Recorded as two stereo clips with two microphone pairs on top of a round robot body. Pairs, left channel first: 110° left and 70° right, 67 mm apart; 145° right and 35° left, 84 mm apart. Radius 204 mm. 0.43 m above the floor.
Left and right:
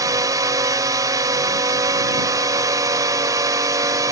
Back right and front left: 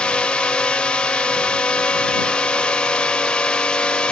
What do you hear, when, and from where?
0.0 s a drone: 70° right